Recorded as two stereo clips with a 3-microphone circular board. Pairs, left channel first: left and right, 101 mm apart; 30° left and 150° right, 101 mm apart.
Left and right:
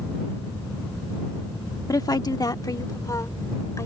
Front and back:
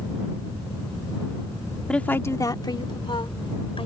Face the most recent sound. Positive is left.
turn(degrees=35)